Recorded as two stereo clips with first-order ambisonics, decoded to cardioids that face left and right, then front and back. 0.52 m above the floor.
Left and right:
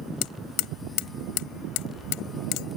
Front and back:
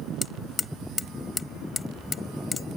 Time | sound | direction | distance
0.2 | hammering | 75° left | ?